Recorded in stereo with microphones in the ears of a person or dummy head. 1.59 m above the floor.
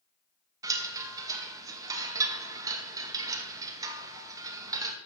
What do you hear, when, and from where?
0.6 s a chime: 20° right (ahead or behind), 2 m